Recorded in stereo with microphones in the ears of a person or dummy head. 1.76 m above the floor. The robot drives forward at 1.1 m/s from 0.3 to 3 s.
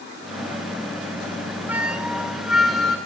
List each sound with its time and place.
1.7 s a flute: 10° right (ahead or behind), 0.5 m; by 3.0 s 5° right (ahead or behind), 1.9 m